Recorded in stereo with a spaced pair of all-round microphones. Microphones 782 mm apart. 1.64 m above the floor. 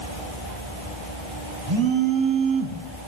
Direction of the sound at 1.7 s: 35° right (ahead or behind).